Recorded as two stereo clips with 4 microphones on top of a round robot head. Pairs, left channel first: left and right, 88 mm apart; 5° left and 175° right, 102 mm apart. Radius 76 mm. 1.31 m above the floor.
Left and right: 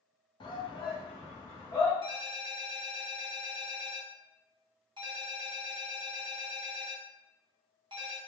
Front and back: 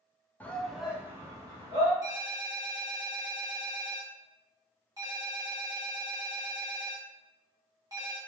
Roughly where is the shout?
Left.